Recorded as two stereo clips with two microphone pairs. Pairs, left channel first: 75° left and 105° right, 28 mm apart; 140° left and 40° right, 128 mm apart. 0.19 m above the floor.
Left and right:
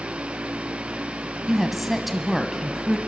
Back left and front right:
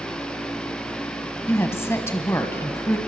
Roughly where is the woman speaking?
Behind.